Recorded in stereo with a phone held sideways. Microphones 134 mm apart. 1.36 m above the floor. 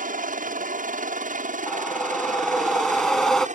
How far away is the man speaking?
No man speaking in this recording.